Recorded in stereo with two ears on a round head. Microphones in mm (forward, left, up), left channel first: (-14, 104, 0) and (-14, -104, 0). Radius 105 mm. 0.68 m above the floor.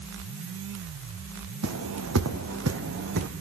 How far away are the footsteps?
About 2 m.